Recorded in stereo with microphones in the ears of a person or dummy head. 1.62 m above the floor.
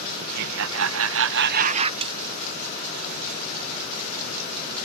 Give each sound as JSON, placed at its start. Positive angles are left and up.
{"t": 0.2, "sound": "laughter", "side_deg": -60}
{"t": 2.0, "sound": "a snare drum", "side_deg": -30}